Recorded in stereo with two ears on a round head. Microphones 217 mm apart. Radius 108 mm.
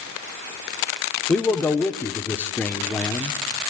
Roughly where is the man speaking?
Centre.